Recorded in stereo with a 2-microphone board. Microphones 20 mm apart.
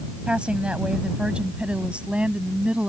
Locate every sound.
0.3 s a woman speaking: 65° right (ahead or behind); by 2.9 s 75° right (ahead or behind)